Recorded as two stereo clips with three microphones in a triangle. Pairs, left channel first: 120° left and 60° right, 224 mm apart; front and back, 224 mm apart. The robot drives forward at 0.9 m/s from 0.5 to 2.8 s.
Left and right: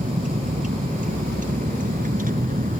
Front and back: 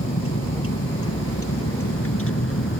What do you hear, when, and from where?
0.0 s a vehicle: 5° right; by 2.8 s 10° right